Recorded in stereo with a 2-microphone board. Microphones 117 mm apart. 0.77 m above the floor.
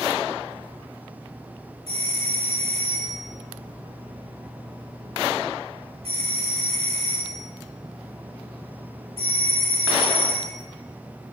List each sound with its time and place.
1.9 s a doorbell: 60° right (ahead or behind), 3.5 m